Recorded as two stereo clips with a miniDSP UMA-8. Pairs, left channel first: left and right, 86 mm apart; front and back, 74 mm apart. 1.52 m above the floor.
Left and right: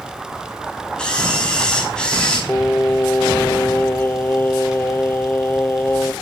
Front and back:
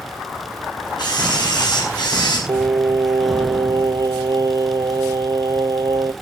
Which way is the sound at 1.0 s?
10° left.